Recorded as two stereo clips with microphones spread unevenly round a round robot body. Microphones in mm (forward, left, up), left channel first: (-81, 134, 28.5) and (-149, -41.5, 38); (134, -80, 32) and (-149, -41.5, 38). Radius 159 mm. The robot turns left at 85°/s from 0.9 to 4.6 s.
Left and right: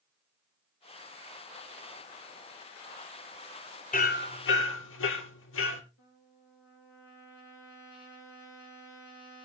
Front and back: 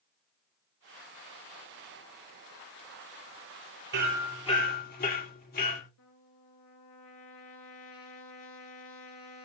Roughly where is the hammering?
Behind left.